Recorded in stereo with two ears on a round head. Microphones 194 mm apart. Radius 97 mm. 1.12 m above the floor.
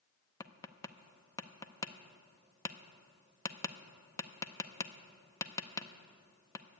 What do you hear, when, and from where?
0.4 s tapping: 15° left (ahead or behind), 0.5 m